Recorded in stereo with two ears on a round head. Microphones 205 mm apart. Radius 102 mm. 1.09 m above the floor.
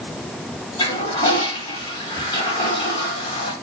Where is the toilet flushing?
20° left (ahead or behind), 1.4 m.